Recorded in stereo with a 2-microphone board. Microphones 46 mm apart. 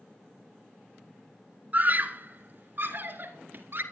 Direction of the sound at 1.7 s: 40° right (ahead or behind).